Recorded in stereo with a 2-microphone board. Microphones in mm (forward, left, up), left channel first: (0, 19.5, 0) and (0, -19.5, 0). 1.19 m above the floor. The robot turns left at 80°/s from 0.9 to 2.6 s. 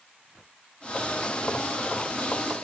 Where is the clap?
I don't hear a clap.